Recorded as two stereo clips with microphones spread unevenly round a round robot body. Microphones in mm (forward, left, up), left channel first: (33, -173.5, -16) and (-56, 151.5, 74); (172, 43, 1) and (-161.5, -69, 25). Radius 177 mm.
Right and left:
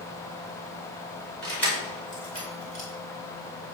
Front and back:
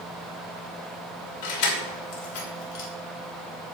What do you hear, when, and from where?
1.4 s keys jangling: 15° left, 2.5 m; by 2.9 s 5° right, 2.5 m